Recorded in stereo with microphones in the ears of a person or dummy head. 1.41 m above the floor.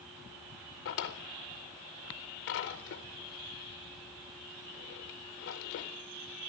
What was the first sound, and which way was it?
A drawer, 45° left (ahead or behind).